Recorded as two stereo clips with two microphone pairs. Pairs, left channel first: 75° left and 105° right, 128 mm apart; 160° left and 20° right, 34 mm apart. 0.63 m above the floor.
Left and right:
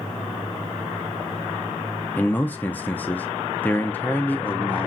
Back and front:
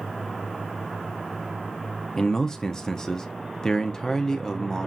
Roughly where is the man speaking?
Behind left.